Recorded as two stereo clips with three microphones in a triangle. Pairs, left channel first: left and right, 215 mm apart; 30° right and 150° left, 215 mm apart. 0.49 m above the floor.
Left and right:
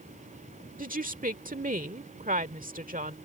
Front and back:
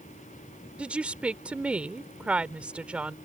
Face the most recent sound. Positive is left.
turn(degrees=-125)